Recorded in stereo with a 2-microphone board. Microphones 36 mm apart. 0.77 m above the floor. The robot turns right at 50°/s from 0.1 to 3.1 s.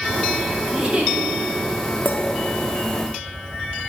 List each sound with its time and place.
0.7 s a giggle: 25° right (ahead or behind), 1.4 m; by 1.1 s 45° right (ahead or behind), 1.4 m
2.0 s a clink: 55° left (ahead or behind), 0.7 m; by 2.2 s 65° left (ahead or behind), 0.7 m